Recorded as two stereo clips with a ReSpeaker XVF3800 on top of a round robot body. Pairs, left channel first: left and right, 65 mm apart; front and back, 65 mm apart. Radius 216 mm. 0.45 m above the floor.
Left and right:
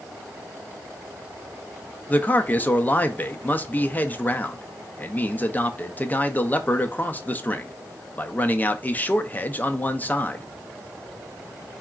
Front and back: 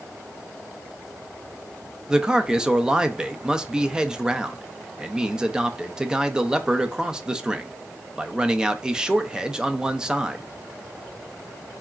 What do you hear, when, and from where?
2.1 s a man speaking: 115° left, 0.7 m